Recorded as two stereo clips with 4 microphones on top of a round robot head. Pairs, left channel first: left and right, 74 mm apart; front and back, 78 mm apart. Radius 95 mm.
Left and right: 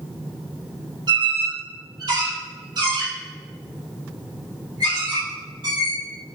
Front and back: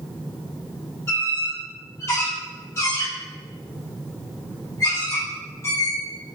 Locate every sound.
1.1 s a squeak: 60° right, 3.5 m